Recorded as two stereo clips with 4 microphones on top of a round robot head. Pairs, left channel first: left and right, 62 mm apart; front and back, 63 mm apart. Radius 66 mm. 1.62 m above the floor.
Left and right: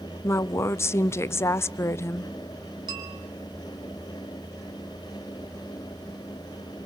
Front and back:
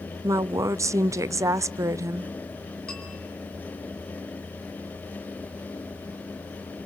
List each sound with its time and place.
0.2 s a woman speaking: 140° left, 0.6 m
2.9 s a bell: 80° right, 2.5 m